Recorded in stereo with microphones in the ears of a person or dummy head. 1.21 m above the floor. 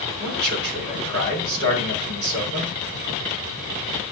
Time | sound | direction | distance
0.2 | a man speaking | 55° right (ahead or behind) | 4 m